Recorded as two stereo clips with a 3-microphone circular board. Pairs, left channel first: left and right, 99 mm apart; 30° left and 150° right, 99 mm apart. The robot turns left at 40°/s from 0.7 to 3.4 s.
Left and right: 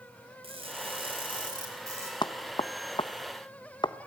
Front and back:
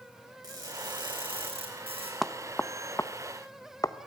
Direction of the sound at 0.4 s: 100° right.